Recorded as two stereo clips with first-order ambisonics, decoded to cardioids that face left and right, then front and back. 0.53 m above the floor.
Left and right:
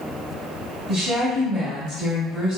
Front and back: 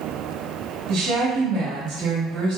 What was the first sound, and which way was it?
A woman speaking, 170° right.